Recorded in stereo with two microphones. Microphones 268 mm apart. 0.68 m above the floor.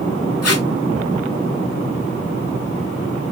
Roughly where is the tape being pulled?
Left.